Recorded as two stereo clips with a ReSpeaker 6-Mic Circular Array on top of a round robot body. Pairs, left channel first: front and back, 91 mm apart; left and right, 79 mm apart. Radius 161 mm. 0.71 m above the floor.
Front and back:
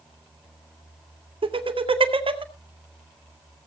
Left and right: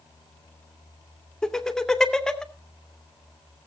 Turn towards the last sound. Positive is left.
turn(degrees=175)